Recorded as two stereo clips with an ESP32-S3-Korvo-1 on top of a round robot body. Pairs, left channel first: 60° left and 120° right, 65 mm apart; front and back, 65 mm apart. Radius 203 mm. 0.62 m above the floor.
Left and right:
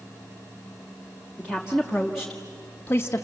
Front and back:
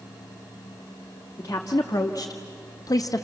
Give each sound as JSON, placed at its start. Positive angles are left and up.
{"t": 1.4, "sound": "a woman speaking", "azimuth_deg": -45, "distance_m": 2.0}